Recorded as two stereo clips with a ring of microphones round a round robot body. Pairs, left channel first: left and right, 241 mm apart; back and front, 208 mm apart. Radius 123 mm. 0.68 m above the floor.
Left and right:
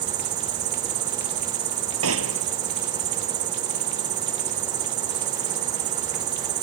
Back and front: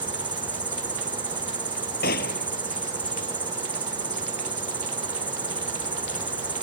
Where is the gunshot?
125° right.